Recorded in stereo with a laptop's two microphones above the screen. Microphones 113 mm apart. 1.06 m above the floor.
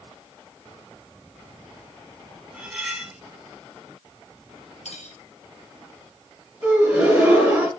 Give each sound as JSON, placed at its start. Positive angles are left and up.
{"t": 2.5, "sound": "cutlery clinking", "side_deg": -10, "distance_m": 2.0}
{"t": 4.8, "sound": "cutlery clinking", "side_deg": 85, "distance_m": 2.0}
{"t": 6.6, "sound": "a gasp", "side_deg": -15, "distance_m": 4.0}